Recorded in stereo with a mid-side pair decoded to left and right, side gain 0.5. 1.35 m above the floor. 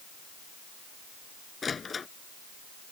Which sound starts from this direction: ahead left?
A door slam, at 1.6 s.